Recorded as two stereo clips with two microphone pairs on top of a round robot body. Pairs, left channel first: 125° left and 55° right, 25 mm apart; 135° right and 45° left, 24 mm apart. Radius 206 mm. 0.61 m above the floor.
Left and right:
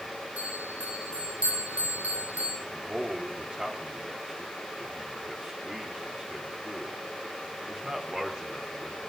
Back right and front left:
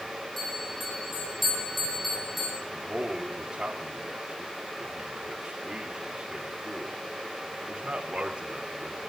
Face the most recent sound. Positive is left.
turn(degrees=0)